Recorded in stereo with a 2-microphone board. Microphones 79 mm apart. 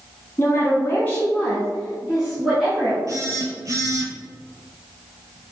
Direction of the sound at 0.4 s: 40° left (ahead or behind).